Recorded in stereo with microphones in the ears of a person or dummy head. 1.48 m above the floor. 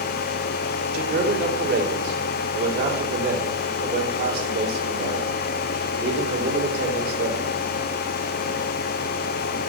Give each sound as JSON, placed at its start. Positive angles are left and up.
{"t": 0.9, "sound": "a man speaking", "side_deg": -60, "distance_m": 3.0}